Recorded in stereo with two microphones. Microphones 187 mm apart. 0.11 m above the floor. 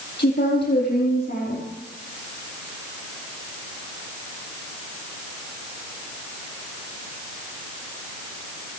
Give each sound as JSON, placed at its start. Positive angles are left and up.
{"t": 0.2, "sound": "a woman speaking", "side_deg": 55, "distance_m": 4.0}